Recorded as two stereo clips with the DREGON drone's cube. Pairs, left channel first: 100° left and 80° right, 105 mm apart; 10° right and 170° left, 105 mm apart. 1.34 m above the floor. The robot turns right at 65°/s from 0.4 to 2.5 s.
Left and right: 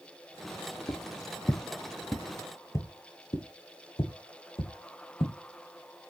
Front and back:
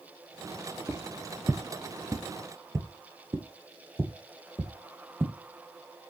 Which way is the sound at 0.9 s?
100° left.